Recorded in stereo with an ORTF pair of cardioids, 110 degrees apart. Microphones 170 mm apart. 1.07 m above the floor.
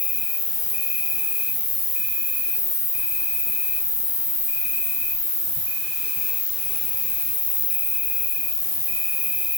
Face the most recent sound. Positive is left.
turn(degrees=50)